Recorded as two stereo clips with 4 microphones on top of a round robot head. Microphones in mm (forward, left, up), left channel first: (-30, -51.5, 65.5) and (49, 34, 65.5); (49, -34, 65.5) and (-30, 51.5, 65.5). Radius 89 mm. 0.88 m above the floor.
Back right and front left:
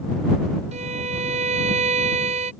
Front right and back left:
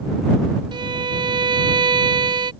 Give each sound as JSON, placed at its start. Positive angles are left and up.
{"t": 0.7, "sound": "a violin", "azimuth_deg": 80}